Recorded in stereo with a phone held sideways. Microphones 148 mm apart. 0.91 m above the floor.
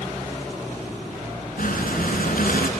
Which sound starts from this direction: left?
Breathing, at 1.6 s.